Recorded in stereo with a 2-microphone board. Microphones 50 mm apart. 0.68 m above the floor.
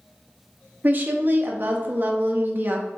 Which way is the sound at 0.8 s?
40° right (ahead or behind).